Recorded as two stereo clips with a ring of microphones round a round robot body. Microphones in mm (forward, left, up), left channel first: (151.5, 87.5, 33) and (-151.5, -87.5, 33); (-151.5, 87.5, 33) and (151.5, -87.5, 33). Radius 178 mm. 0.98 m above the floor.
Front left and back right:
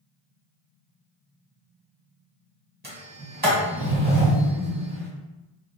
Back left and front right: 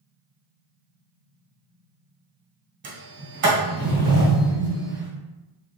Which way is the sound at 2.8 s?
85° right.